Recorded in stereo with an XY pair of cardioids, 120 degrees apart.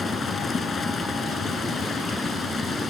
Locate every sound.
0.0 s running water: 30° left